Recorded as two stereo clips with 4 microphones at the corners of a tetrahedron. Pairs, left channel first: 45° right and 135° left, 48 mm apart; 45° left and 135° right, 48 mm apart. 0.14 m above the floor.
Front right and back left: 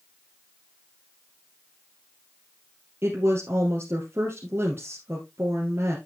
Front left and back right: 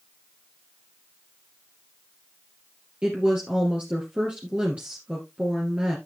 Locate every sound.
3.0 s a woman speaking: 160° left, 2.5 m